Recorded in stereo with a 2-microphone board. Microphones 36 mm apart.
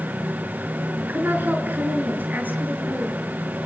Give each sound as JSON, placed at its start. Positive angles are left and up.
{"t": 1.0, "sound": "a woman speaking", "side_deg": -60, "distance_m": 5.0}